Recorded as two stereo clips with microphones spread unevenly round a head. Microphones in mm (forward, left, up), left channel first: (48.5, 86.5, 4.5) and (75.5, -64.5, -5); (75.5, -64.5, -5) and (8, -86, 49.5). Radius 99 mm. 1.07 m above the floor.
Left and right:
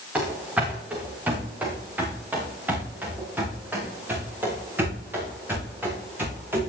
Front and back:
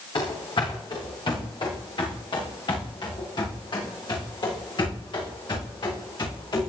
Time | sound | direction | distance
0.1 | running footsteps | straight ahead | 5.5 m